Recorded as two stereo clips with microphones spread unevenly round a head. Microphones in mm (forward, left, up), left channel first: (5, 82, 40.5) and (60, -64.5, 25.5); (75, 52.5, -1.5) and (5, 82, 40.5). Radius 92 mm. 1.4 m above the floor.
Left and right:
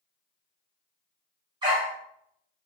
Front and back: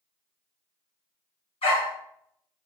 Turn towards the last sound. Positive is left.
turn(degrees=-15)